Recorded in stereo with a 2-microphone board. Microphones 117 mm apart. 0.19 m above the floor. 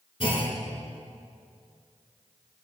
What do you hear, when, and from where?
0.2 s a clunk: 50° left (ahead or behind), 1.5 m